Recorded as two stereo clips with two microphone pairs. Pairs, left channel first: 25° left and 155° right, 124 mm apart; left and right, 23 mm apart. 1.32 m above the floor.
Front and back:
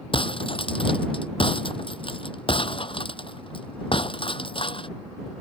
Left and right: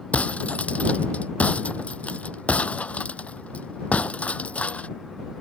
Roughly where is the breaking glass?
Left.